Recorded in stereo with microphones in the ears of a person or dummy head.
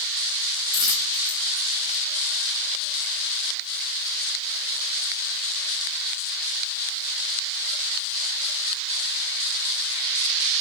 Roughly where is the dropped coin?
Right.